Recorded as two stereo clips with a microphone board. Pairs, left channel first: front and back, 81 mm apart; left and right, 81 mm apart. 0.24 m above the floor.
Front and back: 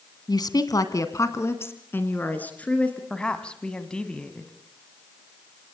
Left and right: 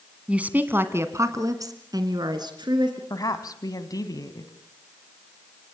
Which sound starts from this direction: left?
A woman speaking, at 3.1 s.